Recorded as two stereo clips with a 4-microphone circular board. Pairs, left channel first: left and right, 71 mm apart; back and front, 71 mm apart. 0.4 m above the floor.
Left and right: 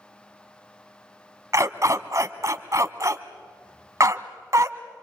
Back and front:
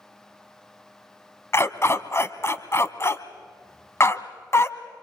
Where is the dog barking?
130° right, 1.1 m.